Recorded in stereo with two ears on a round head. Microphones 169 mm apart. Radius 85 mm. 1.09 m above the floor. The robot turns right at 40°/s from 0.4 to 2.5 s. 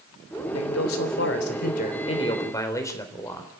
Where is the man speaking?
85° left, 3.5 m; by 3.5 s 165° left, 3.5 m.